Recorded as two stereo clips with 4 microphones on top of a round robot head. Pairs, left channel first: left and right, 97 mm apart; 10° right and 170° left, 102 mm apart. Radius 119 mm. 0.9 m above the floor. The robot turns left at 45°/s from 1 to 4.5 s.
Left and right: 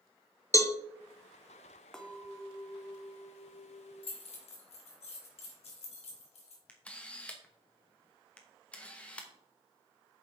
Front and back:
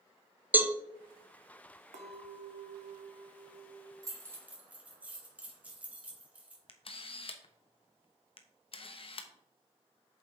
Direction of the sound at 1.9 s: 175° left.